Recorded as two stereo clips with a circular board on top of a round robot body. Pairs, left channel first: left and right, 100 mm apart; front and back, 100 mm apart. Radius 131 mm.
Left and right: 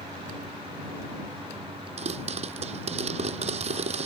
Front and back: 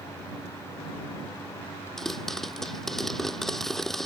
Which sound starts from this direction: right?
A pop, at 2.0 s.